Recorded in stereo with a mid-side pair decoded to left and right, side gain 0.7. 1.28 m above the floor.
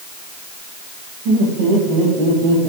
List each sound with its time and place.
1.2 s laughter: 70° right, 4.5 m; by 2.7 s 75° right, 6 m